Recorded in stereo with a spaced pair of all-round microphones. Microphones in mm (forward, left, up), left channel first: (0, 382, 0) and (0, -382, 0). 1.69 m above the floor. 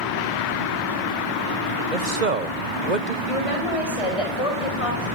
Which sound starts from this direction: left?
A woman speaking, at 3.3 s.